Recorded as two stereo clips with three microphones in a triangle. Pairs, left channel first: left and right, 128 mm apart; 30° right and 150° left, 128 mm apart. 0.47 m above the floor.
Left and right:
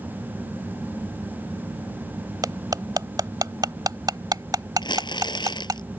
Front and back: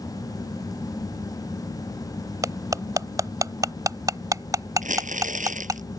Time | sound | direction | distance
2.4 | cutlery clinking | 145° right | ?
4.8 | crumpling | 145° left | ?